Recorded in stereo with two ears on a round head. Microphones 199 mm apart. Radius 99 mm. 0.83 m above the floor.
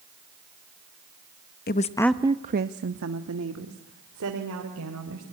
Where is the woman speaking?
45° left (ahead or behind), 0.8 m; by 5.2 s 80° right, 4 m.